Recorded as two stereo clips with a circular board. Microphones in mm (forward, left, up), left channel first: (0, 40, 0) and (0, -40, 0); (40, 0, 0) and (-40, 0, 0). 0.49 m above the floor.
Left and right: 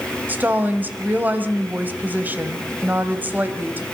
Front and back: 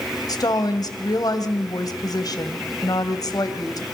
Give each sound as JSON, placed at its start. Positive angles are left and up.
{"t": 0.3, "sound": "a woman speaking", "azimuth_deg": -25, "distance_m": 2.5}